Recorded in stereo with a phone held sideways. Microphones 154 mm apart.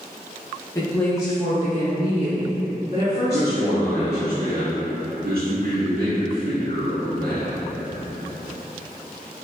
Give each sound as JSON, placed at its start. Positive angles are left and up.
{"t": 0.8, "sound": "a woman speaking", "side_deg": 20, "distance_m": 0.8}
{"t": 3.3, "sound": "a man speaking", "side_deg": -75, "distance_m": 1.6}